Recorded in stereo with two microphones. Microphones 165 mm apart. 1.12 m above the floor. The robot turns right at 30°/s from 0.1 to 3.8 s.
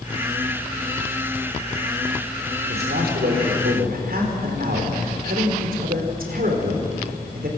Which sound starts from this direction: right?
A man speaking, at 2.7 s.